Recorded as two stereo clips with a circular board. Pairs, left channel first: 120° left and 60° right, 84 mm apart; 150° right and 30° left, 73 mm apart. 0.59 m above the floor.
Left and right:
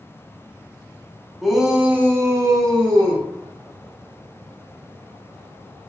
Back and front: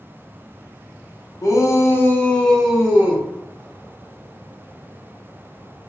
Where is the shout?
150° right, 0.9 m; by 3.2 s 35° right, 1.0 m.